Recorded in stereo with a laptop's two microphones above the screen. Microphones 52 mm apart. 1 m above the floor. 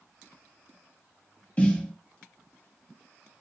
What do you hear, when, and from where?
1.6 s a snare drum: 30° left (ahead or behind), 0.9 m